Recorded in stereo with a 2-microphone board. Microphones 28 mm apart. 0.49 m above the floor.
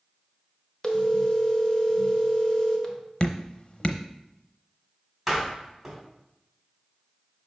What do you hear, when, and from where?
0.8 s a phone ringing: 25° left (ahead or behind), 1.1 m
3.2 s dripping: 40° left (ahead or behind), 0.7 m
5.3 s a door slam: 10° right (ahead or behind), 2.5 m